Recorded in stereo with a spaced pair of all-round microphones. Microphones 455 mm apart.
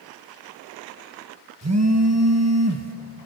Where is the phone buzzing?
35° right (ahead or behind), 1.5 m.